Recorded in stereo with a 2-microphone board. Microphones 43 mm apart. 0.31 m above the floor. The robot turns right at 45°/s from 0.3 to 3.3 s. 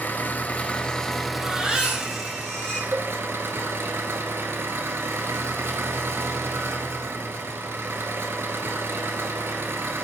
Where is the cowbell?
45° right (ahead or behind), 1.1 m; by 3.1 s 50° right (ahead or behind), 1.1 m.